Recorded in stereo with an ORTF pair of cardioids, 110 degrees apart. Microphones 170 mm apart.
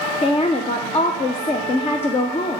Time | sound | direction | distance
0.2 | a woman speaking | 35° left | 0.6 m